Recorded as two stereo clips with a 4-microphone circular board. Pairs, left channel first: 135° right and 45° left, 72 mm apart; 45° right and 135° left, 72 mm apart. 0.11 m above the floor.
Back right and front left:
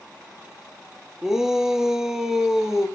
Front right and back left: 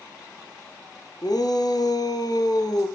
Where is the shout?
40° right, 2.5 m.